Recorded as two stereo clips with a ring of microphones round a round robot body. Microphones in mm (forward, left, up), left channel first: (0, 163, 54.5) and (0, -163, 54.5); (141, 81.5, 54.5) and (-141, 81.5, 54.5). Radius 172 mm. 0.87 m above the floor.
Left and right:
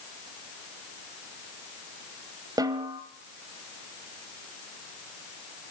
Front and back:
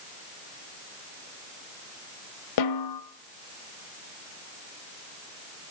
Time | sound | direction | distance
2.6 | a snare drum | 10° right | 1.1 m